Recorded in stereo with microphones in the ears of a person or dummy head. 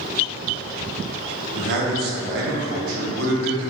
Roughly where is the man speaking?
Right.